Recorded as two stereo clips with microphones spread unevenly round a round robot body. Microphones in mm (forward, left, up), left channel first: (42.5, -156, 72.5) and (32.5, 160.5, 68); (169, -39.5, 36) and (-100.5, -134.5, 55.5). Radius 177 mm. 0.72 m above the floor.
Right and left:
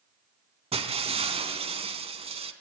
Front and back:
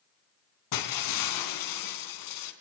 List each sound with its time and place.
0.7 s breaking glass: 20° left, 3.5 m